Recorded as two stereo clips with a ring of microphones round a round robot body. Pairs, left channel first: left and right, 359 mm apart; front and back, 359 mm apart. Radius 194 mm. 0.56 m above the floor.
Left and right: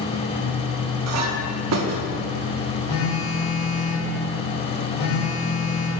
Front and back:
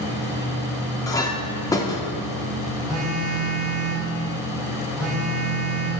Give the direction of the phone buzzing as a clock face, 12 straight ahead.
9 o'clock.